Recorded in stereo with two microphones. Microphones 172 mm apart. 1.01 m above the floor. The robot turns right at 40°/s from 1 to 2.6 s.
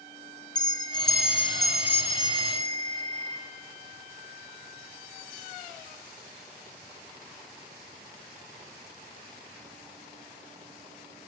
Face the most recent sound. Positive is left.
turn(degrees=-140)